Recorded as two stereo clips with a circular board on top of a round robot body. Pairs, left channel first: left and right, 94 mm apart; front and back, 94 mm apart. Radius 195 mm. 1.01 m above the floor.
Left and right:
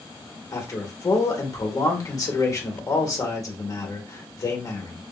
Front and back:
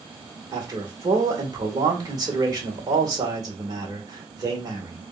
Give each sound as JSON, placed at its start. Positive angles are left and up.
{"t": 0.5, "sound": "a man speaking", "azimuth_deg": 140, "distance_m": 1.6}